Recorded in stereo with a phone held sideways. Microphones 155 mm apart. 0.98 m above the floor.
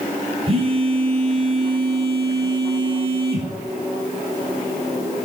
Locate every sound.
0.5 s a phone buzzing: 40° right (ahead or behind), 3.5 m